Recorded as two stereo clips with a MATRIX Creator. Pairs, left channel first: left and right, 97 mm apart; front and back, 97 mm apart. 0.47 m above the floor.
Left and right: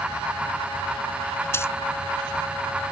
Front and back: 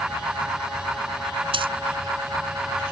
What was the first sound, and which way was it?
A dropped coin, 155° left.